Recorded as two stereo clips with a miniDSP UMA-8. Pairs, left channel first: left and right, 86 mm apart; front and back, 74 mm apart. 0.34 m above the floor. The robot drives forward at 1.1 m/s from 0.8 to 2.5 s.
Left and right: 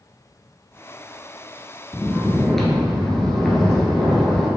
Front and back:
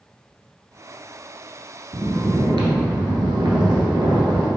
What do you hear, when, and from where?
1.9 s snoring: 170° left, 0.5 m; by 4.5 s 175° left, 1.1 m